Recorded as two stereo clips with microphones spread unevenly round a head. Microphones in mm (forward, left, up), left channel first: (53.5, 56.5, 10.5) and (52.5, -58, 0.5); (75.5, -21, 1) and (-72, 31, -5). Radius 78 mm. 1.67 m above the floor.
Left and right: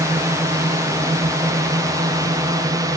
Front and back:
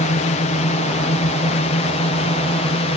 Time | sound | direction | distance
0.0 | a drone | 40° right | ?